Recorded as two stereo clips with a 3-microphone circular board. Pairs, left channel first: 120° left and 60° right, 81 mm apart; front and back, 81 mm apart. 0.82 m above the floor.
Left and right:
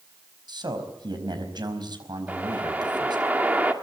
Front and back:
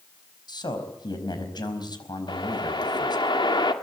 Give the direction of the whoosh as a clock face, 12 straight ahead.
12 o'clock.